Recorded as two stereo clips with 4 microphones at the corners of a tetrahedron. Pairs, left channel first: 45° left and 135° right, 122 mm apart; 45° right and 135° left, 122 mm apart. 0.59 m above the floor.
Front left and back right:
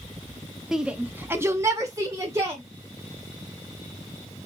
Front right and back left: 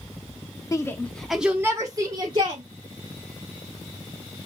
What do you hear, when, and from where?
0.7 s a shout: 55° right, 0.6 m; by 2.6 s 165° left, 1.0 m